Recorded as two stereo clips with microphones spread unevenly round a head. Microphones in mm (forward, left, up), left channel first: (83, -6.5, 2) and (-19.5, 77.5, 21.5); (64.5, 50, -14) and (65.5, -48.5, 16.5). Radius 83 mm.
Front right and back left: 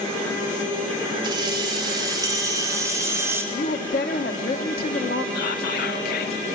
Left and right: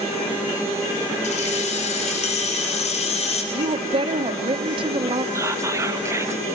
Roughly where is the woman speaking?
Right.